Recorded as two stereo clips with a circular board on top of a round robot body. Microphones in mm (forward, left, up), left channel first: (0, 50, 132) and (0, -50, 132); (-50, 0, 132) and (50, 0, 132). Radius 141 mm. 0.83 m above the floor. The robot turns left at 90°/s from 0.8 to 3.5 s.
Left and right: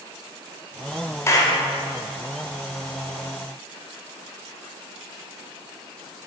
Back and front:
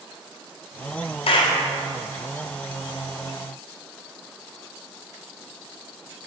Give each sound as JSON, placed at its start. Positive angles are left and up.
{"t": 1.3, "sound": "a clap", "azimuth_deg": 155, "distance_m": 1.2}